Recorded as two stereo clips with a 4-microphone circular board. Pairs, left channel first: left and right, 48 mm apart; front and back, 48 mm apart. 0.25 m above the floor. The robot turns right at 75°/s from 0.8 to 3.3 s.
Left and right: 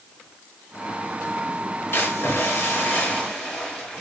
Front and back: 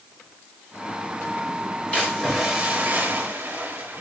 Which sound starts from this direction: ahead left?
A splash, at 1.9 s.